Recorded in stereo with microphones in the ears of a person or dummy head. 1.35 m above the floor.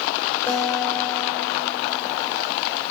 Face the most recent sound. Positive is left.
turn(degrees=15)  # may be behind; listen again after turning